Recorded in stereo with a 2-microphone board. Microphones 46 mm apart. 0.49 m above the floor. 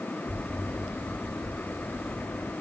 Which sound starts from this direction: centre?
An explosion, at 0.2 s.